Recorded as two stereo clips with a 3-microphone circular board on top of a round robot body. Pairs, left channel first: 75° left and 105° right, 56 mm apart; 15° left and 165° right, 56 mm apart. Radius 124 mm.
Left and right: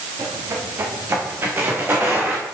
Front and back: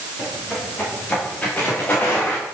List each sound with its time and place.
0.2 s footsteps: 60° right, 3.5 m; by 2.5 s 45° right, 3.5 m